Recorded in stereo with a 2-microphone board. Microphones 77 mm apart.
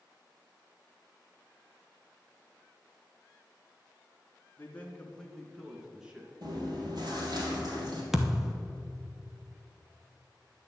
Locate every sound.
4.6 s a man speaking: 25° left (ahead or behind), 2 m; by 6.3 s 15° right (ahead or behind), 2.5 m
6.4 s chewing: 60° right (ahead or behind), 3.5 m
8.1 s a thud: 5° right (ahead or behind), 1.1 m